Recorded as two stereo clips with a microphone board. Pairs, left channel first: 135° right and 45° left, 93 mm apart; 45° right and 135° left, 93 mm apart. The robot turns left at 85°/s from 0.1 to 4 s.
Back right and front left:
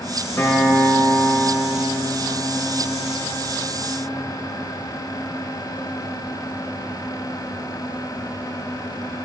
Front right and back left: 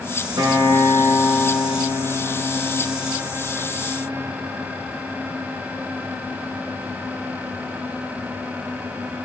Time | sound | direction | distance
0.4 | a guitar | 165° left | 2.0 m